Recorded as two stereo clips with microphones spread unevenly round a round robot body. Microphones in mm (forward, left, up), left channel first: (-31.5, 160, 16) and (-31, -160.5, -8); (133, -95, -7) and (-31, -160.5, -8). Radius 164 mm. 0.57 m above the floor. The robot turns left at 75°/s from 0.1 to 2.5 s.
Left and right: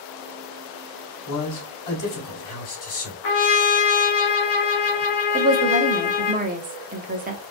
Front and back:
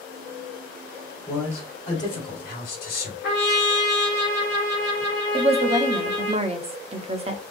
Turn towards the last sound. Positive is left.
turn(degrees=-130)